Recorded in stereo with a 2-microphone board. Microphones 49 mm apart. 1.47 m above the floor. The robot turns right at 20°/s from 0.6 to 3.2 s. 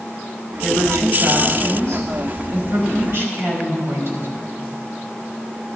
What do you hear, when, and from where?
0.6 s a woman speaking: 110° right, 4 m; by 4.3 s 60° right, 4 m